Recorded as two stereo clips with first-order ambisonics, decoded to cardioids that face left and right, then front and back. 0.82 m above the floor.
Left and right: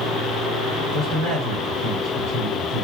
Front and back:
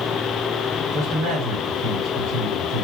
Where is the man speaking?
175° right, 2.5 m.